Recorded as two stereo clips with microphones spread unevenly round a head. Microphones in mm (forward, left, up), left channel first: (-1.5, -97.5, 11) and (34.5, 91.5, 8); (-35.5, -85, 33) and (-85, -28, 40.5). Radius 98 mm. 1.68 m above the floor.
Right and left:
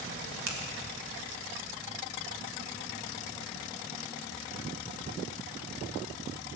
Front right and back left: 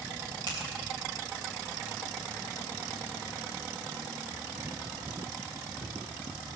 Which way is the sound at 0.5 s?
65° left.